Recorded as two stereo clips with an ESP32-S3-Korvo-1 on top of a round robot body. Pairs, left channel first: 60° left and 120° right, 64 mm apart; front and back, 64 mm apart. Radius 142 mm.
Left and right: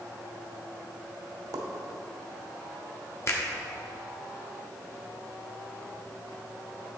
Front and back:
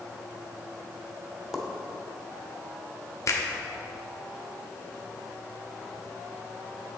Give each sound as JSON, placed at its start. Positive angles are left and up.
{"t": 1.5, "sound": "a pop", "azimuth_deg": -95, "distance_m": 0.9}
{"t": 3.3, "sound": "a finger snap", "azimuth_deg": 25, "distance_m": 1.3}